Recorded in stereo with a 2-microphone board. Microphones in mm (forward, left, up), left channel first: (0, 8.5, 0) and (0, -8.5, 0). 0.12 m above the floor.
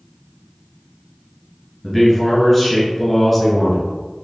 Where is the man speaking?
5° left (ahead or behind), 1.5 m.